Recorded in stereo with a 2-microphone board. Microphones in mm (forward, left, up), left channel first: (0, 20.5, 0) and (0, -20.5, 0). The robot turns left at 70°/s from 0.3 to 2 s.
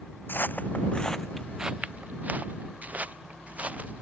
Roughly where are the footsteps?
Left.